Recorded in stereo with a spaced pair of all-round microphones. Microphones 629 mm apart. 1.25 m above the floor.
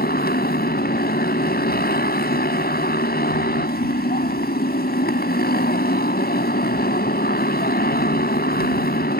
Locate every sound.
0.0 s a motorcycle: 15° left (ahead or behind)